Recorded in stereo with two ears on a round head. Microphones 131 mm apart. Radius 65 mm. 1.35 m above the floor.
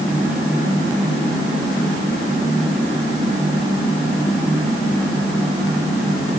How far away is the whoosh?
I don't hear a whoosh.